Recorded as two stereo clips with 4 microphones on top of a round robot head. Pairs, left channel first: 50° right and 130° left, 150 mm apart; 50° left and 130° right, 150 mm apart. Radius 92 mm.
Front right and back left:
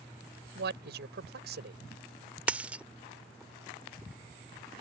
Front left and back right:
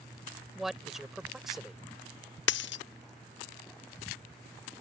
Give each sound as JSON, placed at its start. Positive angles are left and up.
{"t": 0.6, "sound": "a man speaking", "azimuth_deg": 140}
{"t": 2.5, "sound": "a dropped coin", "azimuth_deg": 50}